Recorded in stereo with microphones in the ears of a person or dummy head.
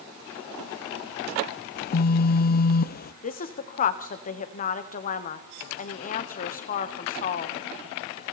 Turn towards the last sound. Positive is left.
turn(degrees=45)  # may be behind; listen again after turning